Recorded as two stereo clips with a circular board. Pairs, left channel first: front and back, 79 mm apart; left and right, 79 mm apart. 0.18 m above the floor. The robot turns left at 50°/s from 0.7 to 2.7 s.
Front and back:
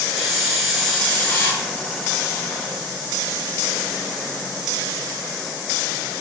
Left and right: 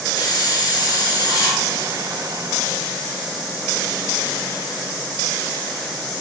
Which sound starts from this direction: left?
A hiss, at 0.2 s.